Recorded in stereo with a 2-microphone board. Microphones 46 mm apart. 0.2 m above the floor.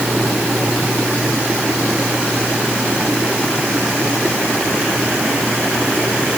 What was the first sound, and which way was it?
Only background noise.